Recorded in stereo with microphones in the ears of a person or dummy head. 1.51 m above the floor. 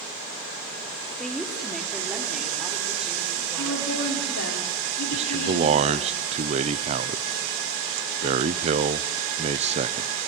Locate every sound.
1.2 s a woman speaking: 5° left (ahead or behind), 2 m; by 4.5 s 5° right (ahead or behind), 6 m
3.6 s a woman speaking: 75° left (ahead or behind), 5 m
5.1 s a man speaking: 35° right (ahead or behind), 0.7 m